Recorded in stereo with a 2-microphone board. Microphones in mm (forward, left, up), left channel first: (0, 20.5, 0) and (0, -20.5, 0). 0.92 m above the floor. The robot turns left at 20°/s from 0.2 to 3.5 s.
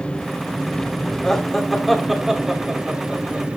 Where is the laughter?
15° left (ahead or behind), 2.5 m; by 3.6 s 30° right (ahead or behind), 2.5 m.